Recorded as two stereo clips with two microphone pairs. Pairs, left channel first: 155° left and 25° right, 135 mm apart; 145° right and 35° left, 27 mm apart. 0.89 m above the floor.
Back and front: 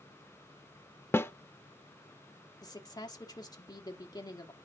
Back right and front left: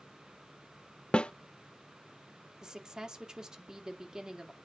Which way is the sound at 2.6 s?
95° left.